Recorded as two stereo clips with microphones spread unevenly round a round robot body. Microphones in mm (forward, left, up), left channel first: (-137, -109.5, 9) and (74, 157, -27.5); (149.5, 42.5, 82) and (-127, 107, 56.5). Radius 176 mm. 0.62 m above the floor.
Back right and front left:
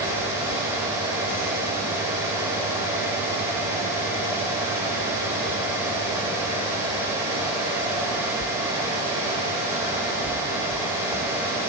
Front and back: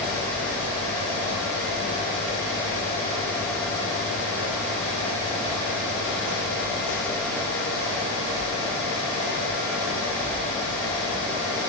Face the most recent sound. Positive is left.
No sound to turn to.